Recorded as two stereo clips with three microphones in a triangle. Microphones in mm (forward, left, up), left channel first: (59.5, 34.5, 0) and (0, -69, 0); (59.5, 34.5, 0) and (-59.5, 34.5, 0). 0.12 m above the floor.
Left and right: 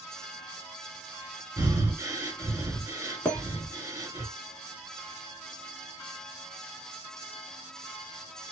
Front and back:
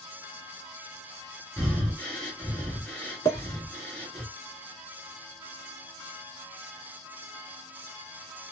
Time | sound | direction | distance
1.6 | breathing | 70° right | 1.9 m
3.2 | a clink | 10° right | 1.2 m